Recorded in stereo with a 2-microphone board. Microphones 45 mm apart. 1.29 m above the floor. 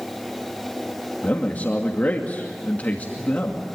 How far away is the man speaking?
About 2.5 m.